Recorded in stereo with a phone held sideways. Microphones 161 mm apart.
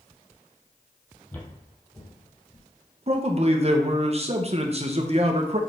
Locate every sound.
1.3 s footsteps: 10° left (ahead or behind), 1.6 m; by 2.7 s 25° left (ahead or behind), 2 m
3.1 s a man speaking: 45° right (ahead or behind), 1.0 m